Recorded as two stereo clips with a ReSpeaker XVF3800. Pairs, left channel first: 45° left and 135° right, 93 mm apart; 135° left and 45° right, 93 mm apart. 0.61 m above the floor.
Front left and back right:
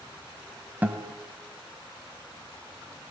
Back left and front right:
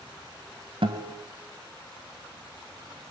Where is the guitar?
65° right, 2.0 m.